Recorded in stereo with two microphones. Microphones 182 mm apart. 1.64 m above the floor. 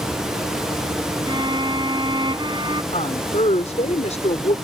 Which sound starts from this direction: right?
A violin, at 1.3 s.